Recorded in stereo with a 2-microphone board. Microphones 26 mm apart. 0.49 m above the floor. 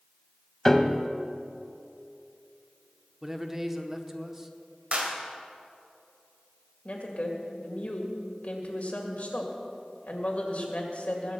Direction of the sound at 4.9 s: 50° right (ahead or behind).